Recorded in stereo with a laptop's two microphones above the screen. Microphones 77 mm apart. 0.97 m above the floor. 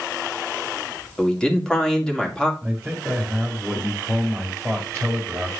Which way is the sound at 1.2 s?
10° left (ahead or behind).